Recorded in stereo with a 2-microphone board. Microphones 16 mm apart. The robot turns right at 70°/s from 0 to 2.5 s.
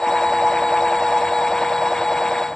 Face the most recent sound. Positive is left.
No sound to turn to.